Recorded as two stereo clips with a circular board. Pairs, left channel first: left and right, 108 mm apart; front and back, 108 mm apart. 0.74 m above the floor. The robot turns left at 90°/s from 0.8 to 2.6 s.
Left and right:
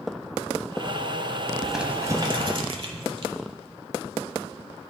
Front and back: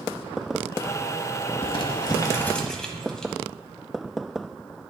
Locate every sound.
1.6 s crumpling: 5° left, 0.8 m; by 3.3 s 85° right, 0.8 m